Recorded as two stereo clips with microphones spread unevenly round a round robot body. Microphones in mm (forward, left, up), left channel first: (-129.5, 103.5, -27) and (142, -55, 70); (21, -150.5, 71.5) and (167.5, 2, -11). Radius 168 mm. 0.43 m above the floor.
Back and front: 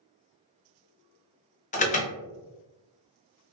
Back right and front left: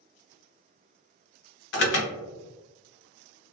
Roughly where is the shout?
No shout in this recording.